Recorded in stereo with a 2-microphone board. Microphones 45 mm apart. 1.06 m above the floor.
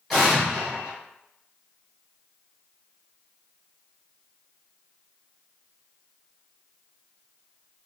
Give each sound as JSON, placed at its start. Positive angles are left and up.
{"t": 0.1, "sound": "an explosion", "side_deg": 0, "distance_m": 1.3}